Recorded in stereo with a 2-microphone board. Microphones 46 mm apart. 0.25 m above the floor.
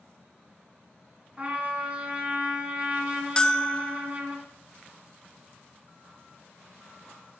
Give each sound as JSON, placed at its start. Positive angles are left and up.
{"t": 1.4, "sound": "a trumpet", "side_deg": -30, "distance_m": 3.0}
{"t": 3.4, "sound": "a bell", "side_deg": 20, "distance_m": 0.5}